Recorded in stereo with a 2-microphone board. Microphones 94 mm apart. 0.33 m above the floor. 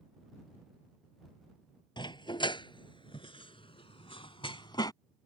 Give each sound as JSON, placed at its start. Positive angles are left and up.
{"t": 2.0, "sound": "a dog barking", "side_deg": 55}